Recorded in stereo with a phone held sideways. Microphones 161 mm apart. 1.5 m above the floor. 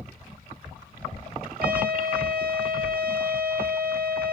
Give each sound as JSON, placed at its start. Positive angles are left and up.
{"t": 1.6, "sound": "a trumpet", "side_deg": -65, "distance_m": 2.5}